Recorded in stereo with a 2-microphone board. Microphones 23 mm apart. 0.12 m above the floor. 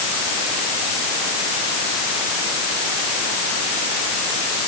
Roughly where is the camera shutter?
No camera shutter in this recording.